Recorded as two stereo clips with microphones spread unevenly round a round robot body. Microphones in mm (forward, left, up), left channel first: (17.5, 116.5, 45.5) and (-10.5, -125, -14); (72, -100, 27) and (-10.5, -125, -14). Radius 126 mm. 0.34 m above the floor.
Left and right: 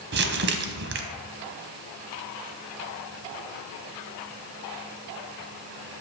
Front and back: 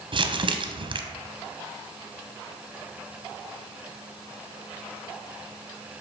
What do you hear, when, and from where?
0.1 s crumpling: 140° right, 0.6 m